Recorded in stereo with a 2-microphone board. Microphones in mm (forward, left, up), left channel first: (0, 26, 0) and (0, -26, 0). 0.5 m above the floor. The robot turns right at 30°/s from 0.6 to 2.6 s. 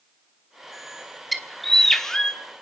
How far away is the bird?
About 1.1 m.